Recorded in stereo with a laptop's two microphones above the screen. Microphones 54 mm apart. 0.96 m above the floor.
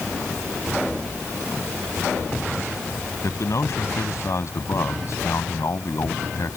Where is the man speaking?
65° left (ahead or behind).